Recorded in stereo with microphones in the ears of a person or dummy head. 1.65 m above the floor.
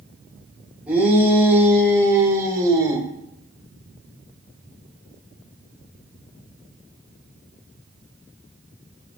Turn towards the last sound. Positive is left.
turn(degrees=-25)  # may be behind; listen again after turning